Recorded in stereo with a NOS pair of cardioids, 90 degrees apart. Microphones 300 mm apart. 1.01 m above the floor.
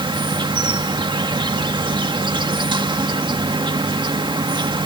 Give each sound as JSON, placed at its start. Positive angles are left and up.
{"t": 0.0, "sound": "an insect", "azimuth_deg": -15}